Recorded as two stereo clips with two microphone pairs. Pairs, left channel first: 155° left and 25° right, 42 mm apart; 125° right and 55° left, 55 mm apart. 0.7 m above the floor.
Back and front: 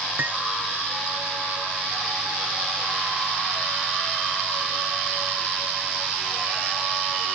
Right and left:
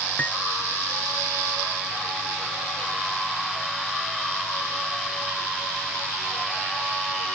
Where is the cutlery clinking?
60° right.